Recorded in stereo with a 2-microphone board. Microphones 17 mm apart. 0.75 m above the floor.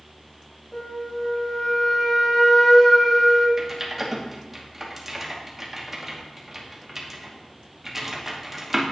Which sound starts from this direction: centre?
Typing on a keyboard, at 3.6 s.